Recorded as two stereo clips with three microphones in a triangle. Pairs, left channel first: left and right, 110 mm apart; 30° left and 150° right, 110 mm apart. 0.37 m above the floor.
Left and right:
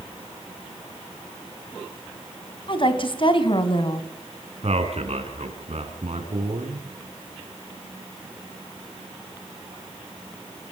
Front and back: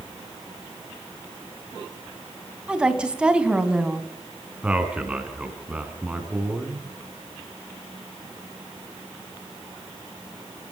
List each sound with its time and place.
2.7 s a woman speaking: 130° left, 2.5 m
4.6 s a man speaking: 70° right, 4.5 m